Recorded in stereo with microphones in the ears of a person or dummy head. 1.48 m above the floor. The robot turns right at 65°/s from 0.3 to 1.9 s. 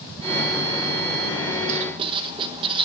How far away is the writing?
About 0.9 m.